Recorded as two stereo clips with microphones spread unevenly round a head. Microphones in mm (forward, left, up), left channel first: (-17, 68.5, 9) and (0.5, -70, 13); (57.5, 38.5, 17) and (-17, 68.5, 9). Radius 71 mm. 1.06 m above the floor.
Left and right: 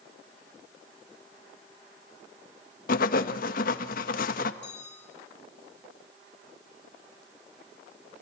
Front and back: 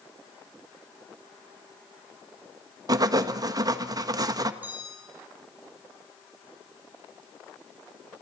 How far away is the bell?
About 8 m.